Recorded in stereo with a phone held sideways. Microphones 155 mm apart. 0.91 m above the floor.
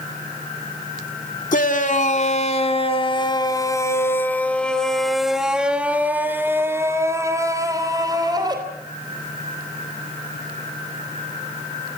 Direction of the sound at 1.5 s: 60° left (ahead or behind).